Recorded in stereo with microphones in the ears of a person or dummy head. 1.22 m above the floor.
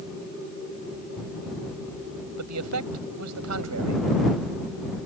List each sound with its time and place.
2.4 s a man speaking: 85° right